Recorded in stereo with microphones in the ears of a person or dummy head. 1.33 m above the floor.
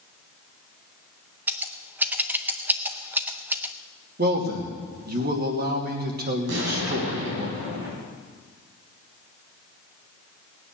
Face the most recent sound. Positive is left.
turn(degrees=-65)  # may be behind; listen again after turning